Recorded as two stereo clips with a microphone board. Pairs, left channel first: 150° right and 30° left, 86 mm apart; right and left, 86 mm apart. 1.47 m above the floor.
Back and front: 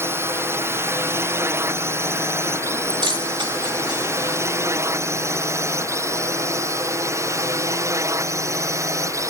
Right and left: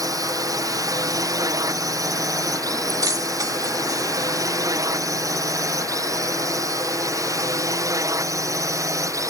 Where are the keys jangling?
45° left.